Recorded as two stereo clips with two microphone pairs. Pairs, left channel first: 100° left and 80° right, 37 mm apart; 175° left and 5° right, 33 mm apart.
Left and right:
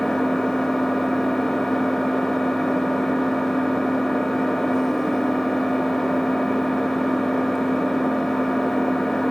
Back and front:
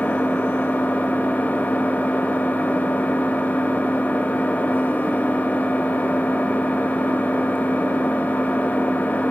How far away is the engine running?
About 0.9 m.